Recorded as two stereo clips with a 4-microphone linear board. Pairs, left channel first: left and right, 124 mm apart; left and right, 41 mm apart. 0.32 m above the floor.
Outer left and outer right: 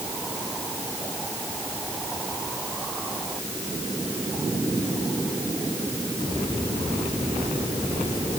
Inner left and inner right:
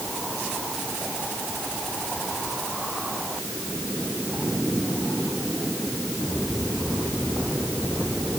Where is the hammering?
No hammering in this recording.